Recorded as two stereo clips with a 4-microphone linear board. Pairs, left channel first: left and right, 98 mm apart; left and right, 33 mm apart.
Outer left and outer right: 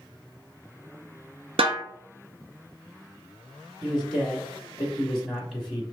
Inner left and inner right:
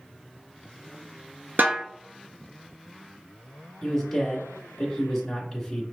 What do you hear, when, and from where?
1.6 s a snare drum: 75° right (ahead or behind), 0.8 m
3.8 s a man speaking: centre (ahead or behind), 1.1 m